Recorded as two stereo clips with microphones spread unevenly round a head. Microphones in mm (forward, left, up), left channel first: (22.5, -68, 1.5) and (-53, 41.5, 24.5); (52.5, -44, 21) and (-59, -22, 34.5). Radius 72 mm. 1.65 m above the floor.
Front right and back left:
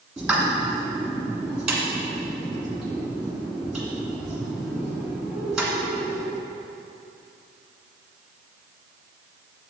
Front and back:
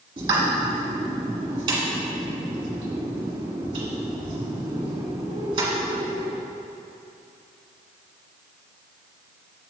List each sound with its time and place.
0.2 s a pop: 160° right, 1.5 m